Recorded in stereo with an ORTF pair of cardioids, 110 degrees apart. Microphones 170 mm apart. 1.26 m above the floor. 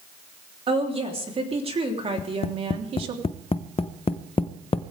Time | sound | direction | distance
0.7 | a woman speaking | 35° right | 3.5 m
2.2 | tapping | 35° left | 0.7 m